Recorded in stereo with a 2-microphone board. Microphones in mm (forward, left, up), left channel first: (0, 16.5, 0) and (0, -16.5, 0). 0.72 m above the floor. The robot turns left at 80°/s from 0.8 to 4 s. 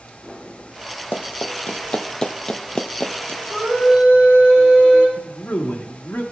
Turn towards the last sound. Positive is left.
turn(degrees=55)  # may be behind; listen again after turning